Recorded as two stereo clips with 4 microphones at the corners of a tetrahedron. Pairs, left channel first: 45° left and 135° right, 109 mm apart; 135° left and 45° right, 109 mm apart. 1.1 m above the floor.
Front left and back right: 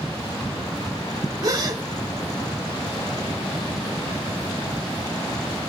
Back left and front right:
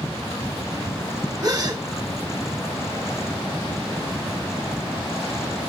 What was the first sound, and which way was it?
A gasp, 95° right.